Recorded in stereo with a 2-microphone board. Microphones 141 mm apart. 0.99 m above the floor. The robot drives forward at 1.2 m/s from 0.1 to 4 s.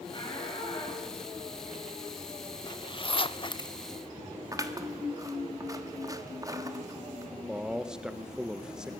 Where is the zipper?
30° left (ahead or behind), 1.0 m.